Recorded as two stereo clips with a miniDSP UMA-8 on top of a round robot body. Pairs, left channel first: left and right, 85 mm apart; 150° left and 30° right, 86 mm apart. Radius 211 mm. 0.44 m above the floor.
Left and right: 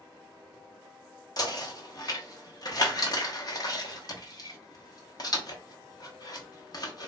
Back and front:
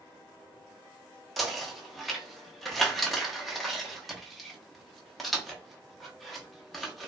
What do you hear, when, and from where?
1.4 s knocking: 60° left, 1.0 m